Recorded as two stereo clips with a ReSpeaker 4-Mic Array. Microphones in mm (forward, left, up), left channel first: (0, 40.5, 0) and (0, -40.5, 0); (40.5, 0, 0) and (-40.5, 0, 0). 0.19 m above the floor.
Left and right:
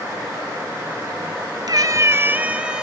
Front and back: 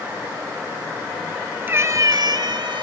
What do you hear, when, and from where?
1.7 s a cat meowing: 120° right, 0.6 m; by 2.8 s 170° right, 1.1 m